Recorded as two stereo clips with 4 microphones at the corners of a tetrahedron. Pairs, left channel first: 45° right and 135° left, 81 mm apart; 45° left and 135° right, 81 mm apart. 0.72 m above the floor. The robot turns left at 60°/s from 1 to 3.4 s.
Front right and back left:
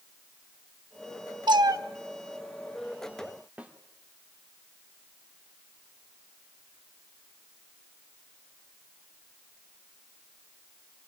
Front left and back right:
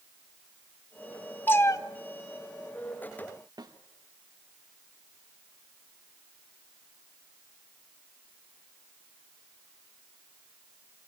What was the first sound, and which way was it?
A cat meowing, 115° left.